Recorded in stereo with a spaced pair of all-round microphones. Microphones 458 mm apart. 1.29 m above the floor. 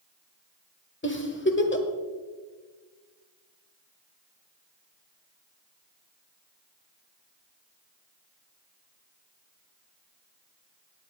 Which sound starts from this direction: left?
A giggle, at 1.0 s.